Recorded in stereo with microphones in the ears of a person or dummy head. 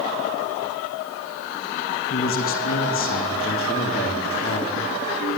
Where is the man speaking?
45° left (ahead or behind), 3 m; by 4.9 s 40° left (ahead or behind), 5 m.